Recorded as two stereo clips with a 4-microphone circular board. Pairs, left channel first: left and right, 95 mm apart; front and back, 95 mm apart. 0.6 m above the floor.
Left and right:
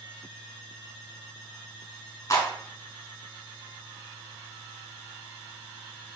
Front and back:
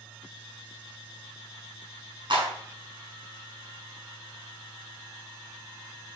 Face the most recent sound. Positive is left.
turn(degrees=145)